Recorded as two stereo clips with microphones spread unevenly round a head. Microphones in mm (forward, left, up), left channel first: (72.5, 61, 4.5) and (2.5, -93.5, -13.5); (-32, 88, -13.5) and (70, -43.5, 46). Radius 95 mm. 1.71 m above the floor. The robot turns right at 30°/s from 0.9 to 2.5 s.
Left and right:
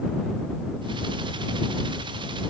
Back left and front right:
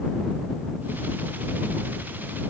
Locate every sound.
Only background noise.